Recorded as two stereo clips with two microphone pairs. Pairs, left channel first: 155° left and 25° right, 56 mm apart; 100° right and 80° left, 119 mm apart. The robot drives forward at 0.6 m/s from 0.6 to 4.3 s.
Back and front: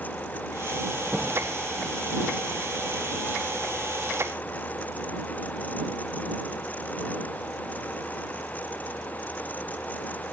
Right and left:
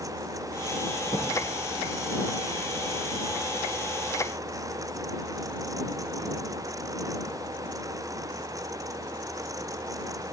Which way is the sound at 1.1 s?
85° right.